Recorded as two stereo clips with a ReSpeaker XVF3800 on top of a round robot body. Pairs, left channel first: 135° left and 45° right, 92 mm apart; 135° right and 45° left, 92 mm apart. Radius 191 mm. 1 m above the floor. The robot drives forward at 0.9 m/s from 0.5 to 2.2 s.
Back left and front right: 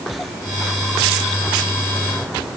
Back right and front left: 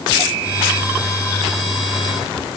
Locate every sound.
Only background noise.